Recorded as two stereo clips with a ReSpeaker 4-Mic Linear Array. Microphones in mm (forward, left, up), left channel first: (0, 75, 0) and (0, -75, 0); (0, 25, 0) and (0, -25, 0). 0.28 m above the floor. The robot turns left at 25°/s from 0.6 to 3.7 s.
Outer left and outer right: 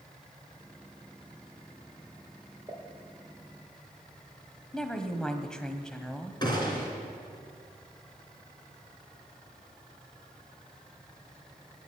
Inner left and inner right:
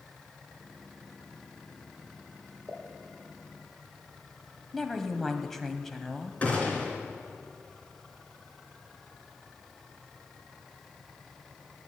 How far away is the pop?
About 4.5 m.